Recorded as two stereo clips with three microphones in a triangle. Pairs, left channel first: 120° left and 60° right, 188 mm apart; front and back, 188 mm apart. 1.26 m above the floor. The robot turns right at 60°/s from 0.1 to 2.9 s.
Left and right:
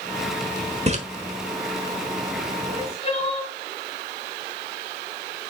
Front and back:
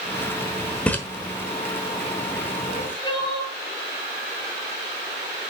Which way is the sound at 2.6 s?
50° left.